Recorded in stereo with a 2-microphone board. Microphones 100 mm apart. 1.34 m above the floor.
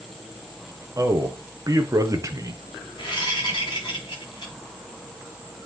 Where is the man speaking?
35° right (ahead or behind), 1.0 m.